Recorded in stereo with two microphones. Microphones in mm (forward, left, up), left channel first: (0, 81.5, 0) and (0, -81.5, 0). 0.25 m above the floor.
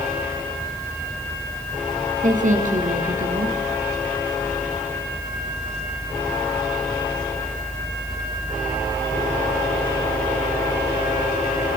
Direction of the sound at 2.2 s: 50° right (ahead or behind).